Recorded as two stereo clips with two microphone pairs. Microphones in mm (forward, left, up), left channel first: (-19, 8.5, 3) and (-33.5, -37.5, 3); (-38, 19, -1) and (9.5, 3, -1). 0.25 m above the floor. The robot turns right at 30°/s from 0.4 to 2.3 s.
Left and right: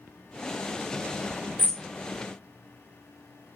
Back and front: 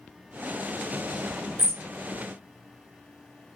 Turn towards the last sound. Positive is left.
turn(degrees=5)